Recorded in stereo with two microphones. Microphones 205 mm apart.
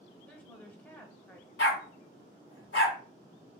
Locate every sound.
0.3 s a woman speaking: 10° left (ahead or behind), 1.0 m
1.6 s a dog barking: 80° left, 0.9 m